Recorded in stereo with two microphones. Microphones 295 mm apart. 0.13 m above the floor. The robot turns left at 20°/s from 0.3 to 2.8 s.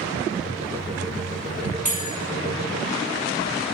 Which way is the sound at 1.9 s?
25° left (ahead or behind).